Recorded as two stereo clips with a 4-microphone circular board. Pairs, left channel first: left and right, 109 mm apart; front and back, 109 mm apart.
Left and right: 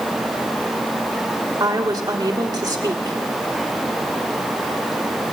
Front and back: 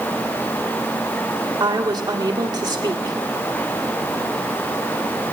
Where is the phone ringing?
I don't hear a phone ringing.